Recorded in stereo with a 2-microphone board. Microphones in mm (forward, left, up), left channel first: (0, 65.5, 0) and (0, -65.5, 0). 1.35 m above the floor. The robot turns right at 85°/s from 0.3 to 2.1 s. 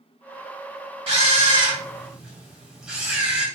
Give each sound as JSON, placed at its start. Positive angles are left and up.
{"t": 1.1, "sound": "a camera shutter", "azimuth_deg": -95, "distance_m": 1.4}